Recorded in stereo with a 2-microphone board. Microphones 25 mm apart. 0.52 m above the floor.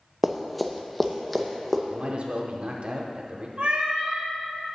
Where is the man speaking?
50° right (ahead or behind), 0.9 m.